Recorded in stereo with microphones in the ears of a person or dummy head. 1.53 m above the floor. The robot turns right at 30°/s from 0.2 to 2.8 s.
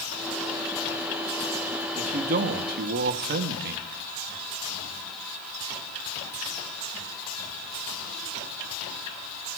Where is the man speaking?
40° right (ahead or behind), 0.8 m; by 3.9 s 55° right (ahead or behind), 0.8 m.